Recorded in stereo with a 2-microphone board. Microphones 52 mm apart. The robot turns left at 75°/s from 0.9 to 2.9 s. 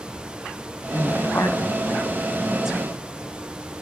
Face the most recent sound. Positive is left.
turn(degrees=-25)  # may be behind; listen again after turning